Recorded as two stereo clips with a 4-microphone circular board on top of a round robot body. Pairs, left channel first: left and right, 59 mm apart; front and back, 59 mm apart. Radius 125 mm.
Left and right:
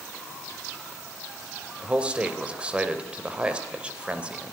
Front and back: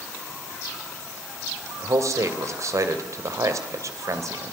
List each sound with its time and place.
1.8 s a man speaking: 160° right, 3 m